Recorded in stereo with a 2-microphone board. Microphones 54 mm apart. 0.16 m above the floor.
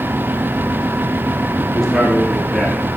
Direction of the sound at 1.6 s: 5° left (ahead or behind).